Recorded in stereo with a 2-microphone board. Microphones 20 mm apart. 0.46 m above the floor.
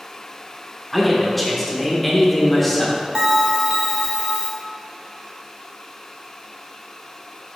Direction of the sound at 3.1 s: 45° right (ahead or behind).